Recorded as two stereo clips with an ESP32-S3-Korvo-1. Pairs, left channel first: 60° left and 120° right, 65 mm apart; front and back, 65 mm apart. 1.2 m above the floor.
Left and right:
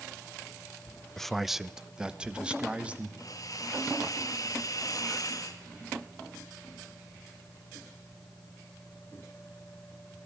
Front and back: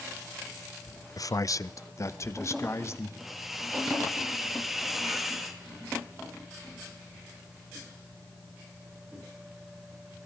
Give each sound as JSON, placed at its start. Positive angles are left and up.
{"t": 1.2, "sound": "a man speaking", "azimuth_deg": -25, "distance_m": 0.6}
{"t": 3.2, "sound": "a hiss", "azimuth_deg": 95, "distance_m": 2.0}